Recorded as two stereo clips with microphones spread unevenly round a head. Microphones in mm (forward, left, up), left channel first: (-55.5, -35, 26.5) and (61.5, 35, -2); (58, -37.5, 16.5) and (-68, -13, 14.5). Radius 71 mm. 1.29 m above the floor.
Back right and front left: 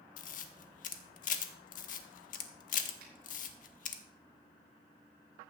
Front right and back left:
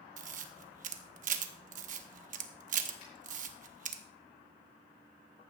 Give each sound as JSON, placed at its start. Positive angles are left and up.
{"t": 0.2, "sound": "a camera shutter", "azimuth_deg": 175, "distance_m": 1.0}
{"t": 3.0, "sound": "a finger snap", "azimuth_deg": 15, "distance_m": 5.5}